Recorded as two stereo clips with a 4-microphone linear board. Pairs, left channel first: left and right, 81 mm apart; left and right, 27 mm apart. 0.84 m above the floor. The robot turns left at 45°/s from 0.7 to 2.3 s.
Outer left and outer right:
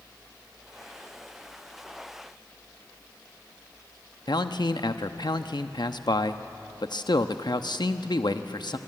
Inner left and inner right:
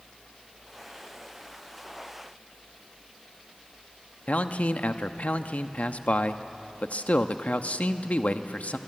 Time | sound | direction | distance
4.3 | a man speaking | 65° left (ahead or behind) | 0.9 m